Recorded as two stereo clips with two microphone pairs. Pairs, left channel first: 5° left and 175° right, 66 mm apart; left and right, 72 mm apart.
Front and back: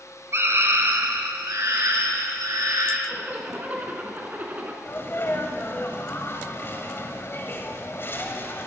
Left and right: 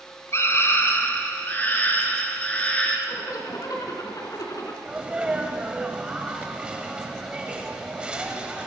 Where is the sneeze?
20° right, 1.8 m.